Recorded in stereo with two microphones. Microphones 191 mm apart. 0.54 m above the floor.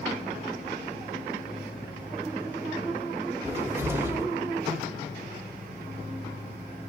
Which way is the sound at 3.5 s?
10° right (ahead or behind).